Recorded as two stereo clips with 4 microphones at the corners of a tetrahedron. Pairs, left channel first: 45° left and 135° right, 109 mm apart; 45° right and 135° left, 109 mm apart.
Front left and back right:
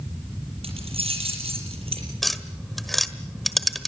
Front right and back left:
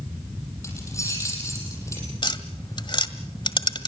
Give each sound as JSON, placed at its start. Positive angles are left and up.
{"t": 0.6, "sound": "keys jangling", "azimuth_deg": -105, "distance_m": 6.5}
{"t": 2.2, "sound": "tapping", "azimuth_deg": -45, "distance_m": 1.5}